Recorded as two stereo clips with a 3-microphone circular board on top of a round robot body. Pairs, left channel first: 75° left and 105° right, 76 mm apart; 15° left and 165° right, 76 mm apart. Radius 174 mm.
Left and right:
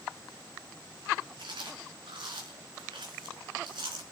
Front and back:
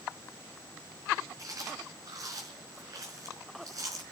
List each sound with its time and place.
1.4 s chewing: 120° right, 4 m